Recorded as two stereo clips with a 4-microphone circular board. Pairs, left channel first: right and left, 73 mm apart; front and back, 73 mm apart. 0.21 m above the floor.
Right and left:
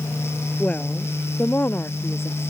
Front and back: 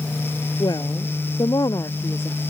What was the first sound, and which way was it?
A woman speaking, 20° right.